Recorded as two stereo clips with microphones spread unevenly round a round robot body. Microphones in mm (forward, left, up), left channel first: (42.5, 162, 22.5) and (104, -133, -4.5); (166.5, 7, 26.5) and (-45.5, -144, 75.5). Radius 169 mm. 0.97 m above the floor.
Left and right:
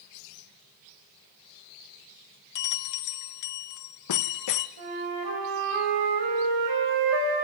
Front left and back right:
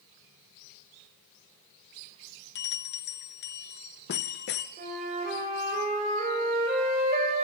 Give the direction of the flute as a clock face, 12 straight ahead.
3 o'clock.